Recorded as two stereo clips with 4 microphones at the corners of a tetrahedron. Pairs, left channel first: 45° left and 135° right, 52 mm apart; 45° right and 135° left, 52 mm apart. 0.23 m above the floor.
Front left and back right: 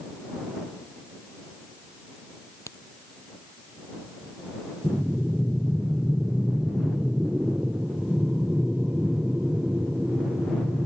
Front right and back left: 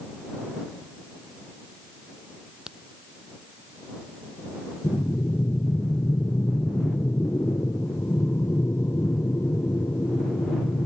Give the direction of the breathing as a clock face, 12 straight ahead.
2 o'clock.